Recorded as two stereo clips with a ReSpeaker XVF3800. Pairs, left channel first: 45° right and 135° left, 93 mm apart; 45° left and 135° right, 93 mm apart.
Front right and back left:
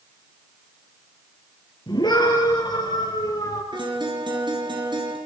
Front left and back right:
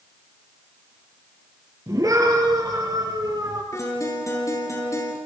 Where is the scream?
85° right, 7.5 m; by 3.6 s 90° right, 8 m.